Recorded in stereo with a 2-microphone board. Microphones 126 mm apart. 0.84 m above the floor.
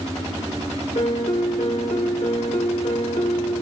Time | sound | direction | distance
0.9 | a piano | 65° left (ahead or behind) | 1.7 m